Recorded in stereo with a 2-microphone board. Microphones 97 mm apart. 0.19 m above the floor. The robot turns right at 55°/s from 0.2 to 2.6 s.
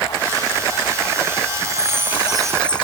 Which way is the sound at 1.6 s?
45° right.